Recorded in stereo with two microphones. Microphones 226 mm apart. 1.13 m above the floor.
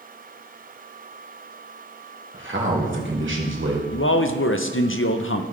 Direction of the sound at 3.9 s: 65° left (ahead or behind).